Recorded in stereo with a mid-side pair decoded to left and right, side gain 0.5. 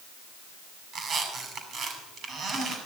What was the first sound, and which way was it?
A squeak, 55° right.